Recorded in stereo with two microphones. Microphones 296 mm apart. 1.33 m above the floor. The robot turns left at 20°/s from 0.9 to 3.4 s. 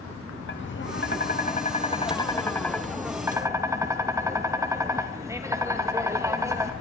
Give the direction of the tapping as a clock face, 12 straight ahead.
11 o'clock.